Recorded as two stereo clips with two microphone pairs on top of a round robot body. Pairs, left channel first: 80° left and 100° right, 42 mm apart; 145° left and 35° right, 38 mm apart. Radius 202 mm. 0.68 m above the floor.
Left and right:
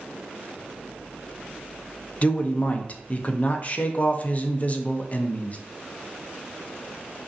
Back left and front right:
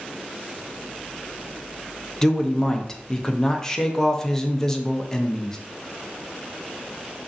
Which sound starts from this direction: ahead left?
A man speaking, at 2.2 s.